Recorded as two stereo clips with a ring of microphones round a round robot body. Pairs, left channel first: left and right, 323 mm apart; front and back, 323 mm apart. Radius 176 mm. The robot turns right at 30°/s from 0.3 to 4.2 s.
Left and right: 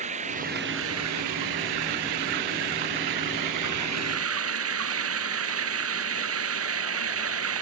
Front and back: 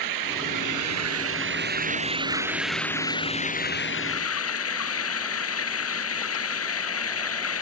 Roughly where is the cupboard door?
I don't hear a cupboard door.